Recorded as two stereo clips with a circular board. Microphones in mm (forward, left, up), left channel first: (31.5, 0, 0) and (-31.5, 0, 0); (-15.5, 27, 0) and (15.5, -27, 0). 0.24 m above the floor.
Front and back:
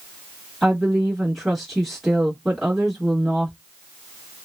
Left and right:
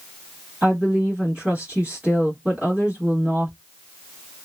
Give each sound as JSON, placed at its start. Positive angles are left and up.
{"t": 0.6, "sound": "a woman speaking", "azimuth_deg": -90, "distance_m": 1.1}